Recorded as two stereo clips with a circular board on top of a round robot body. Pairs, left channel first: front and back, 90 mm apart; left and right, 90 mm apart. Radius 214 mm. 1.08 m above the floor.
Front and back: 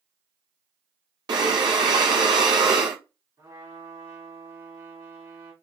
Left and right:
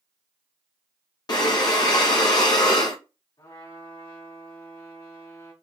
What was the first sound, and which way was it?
Breathing, 135° left.